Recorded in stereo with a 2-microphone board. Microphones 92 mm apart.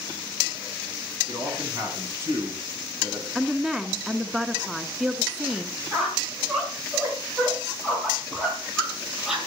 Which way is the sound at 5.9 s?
5° right (ahead or behind).